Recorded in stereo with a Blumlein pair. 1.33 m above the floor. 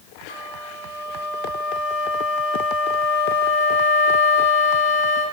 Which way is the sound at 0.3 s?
65° left.